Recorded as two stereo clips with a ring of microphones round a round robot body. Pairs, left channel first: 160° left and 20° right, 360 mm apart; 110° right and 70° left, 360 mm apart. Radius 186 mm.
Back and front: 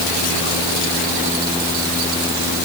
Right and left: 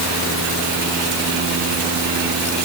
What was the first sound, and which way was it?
Only background noise.